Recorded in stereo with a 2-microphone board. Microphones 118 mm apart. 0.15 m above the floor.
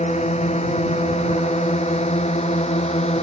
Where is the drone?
70° left (ahead or behind); by 3.2 s 65° left (ahead or behind).